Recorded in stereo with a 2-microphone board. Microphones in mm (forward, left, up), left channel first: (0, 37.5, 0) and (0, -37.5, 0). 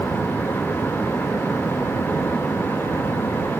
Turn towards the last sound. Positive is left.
No sound to turn to.